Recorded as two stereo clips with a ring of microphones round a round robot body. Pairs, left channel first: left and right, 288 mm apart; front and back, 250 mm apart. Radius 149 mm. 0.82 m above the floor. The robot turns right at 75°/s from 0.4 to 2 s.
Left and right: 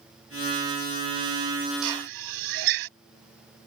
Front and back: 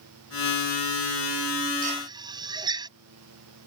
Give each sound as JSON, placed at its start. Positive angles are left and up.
{"t": 1.8, "sound": "a drill", "azimuth_deg": -115}